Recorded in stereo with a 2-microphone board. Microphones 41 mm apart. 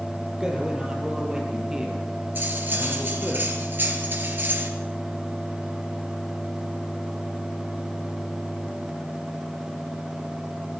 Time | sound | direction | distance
0.4 | a man speaking | 15° right (ahead or behind) | 6.5 m
2.4 | cutlery clinking | 50° right (ahead or behind) | 3 m